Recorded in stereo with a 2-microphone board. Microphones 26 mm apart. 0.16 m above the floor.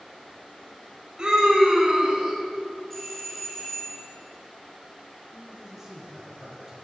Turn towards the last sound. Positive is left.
turn(degrees=-15)  # may be behind; listen again after turning